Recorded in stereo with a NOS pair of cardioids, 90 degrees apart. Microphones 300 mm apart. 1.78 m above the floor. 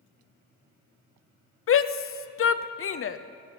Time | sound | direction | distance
1.7 | a shout | 45° left | 0.9 m